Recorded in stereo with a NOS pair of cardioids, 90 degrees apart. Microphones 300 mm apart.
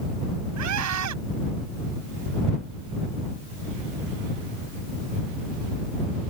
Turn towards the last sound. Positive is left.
turn(degrees=-70)